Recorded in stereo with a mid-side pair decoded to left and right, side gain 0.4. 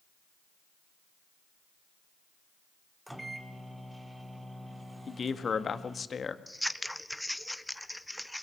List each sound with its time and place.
3.1 s a microwave: 10° right, 2 m
5.1 s a man speaking: 45° left, 1.7 m
6.5 s scissors: 5° left, 0.8 m